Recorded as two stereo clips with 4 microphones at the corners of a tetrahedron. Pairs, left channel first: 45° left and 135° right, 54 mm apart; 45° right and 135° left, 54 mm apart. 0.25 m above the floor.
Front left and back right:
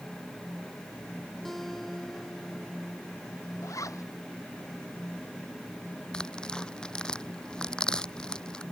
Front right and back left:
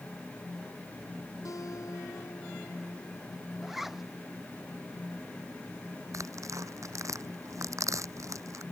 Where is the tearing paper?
120° left.